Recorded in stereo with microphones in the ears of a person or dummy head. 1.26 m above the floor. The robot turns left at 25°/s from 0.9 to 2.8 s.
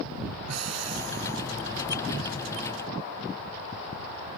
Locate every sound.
0.5 s breathing: 80° right; by 1.4 s 65° right (ahead or behind)